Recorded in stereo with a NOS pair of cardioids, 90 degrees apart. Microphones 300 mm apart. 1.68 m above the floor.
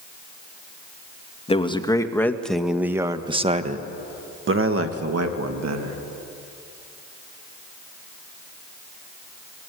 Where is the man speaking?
20° left, 2 m; by 6.0 s 65° right, 2.5 m.